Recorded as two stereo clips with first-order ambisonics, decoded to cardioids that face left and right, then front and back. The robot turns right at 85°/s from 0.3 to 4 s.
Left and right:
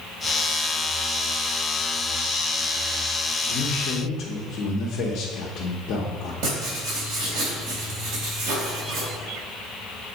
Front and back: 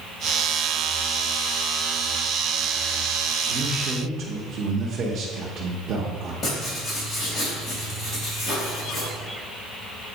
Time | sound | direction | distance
3.5 | a man speaking | 85° left | 0.9 m
6.4 | writing | 75° right | 2.5 m